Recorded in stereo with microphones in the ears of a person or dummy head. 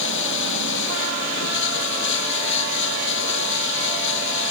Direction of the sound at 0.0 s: 75° left (ahead or behind).